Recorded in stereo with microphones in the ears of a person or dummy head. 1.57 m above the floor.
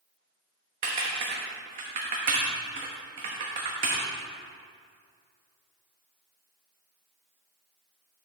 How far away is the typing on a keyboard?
About 1.0 m.